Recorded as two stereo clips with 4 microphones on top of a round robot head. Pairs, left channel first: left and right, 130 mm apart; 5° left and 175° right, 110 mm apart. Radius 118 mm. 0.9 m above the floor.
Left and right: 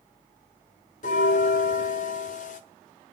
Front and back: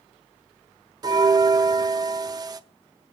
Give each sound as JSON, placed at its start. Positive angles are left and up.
{"t": 1.0, "sound": "a bell", "azimuth_deg": 135, "distance_m": 0.9}